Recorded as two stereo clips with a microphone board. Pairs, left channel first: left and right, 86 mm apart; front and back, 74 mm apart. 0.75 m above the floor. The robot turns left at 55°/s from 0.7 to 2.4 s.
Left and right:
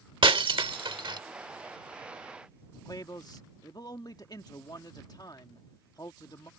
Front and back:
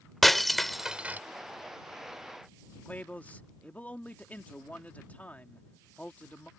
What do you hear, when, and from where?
0.2 s breaking glass: 90° right; by 1.2 s 115° right
2.9 s a man speaking: 65° left